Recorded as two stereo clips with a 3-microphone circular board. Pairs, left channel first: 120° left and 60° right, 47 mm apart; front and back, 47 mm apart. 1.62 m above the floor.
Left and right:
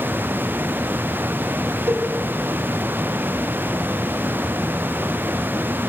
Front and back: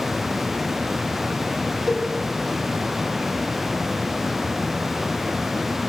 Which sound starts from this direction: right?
A cowbell, at 1.9 s.